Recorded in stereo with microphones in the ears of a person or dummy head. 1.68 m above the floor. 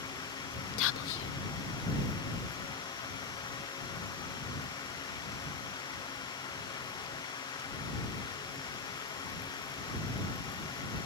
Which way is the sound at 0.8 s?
75° left (ahead or behind).